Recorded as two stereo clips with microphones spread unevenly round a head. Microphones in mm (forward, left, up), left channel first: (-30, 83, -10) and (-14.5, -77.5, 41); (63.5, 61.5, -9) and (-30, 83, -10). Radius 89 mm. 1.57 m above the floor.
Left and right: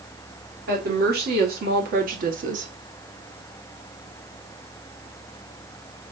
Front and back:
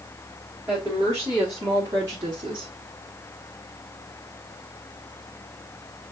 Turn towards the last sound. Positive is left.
turn(degrees=-130)